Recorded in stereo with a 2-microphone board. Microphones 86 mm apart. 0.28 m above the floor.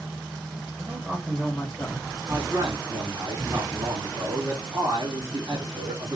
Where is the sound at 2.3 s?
50° right (ahead or behind), 2.5 m.